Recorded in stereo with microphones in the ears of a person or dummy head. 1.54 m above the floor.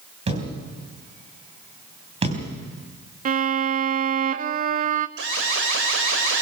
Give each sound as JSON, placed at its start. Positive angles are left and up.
{"t": 0.3, "sound": "a thud", "side_deg": -30, "distance_m": 3.5}
{"t": 3.2, "sound": "a violin", "side_deg": -40, "distance_m": 0.6}
{"t": 5.2, "sound": "an alarm", "side_deg": -65, "distance_m": 5.0}